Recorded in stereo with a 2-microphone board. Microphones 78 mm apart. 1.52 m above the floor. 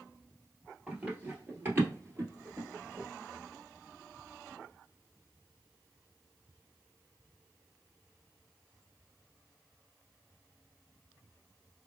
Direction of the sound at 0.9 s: 20° right (ahead or behind).